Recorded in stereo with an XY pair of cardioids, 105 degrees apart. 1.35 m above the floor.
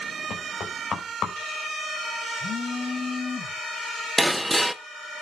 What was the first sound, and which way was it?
Knocking, 50° left.